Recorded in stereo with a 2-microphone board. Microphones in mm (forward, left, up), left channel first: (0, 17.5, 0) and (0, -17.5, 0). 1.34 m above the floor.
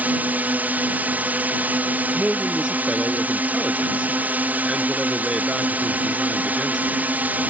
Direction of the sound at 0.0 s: 60° right (ahead or behind).